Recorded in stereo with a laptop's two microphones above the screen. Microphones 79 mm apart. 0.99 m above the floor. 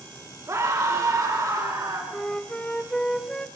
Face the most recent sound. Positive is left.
turn(degrees=10)  # may be behind; listen again after turning